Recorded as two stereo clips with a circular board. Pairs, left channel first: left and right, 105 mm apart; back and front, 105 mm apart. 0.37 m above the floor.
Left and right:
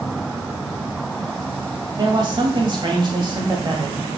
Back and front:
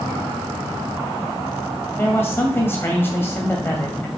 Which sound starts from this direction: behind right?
A man speaking, at 2.0 s.